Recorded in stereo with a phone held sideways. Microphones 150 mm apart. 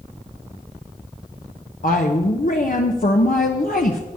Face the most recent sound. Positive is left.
turn(degrees=70)  # may be behind; listen again after turning